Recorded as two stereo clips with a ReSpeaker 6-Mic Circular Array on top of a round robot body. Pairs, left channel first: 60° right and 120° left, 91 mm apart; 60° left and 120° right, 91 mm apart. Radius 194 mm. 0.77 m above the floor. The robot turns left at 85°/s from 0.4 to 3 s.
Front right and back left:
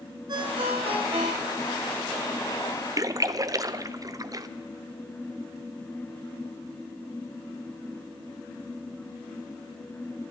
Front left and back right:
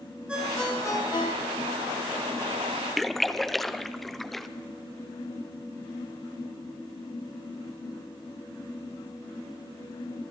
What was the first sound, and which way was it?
A ringtone, 160° left.